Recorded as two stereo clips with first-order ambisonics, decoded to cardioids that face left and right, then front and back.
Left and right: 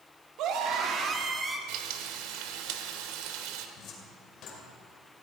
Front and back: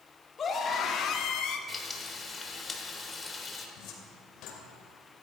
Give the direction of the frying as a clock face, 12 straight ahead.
3 o'clock.